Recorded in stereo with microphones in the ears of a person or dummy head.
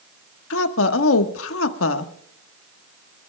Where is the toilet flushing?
I don't hear a toilet flushing.